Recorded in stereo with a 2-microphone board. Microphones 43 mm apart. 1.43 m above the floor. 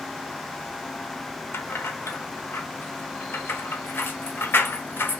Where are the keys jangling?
70° left (ahead or behind), 0.8 m.